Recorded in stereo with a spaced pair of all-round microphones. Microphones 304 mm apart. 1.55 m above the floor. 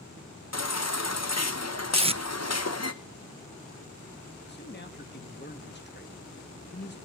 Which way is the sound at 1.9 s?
20° right (ahead or behind).